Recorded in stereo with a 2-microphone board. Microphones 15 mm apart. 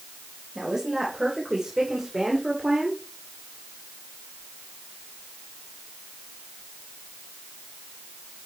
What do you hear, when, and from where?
0.6 s a woman speaking: 35° right (ahead or behind), 3 m; by 3.0 s 50° right (ahead or behind), 1.8 m